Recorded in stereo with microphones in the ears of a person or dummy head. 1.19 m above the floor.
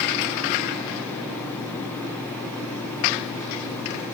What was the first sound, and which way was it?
Only background noise.